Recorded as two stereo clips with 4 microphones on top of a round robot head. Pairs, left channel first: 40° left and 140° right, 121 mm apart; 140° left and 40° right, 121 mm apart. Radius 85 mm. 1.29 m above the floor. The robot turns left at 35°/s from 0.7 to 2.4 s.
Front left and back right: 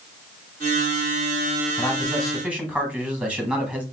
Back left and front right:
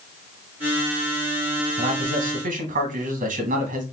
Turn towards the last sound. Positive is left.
turn(degrees=-60)